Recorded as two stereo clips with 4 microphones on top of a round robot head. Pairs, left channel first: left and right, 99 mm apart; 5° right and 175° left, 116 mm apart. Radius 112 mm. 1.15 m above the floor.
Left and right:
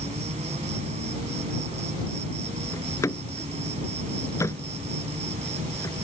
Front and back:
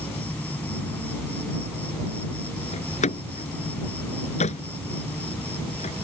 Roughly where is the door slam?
Ahead.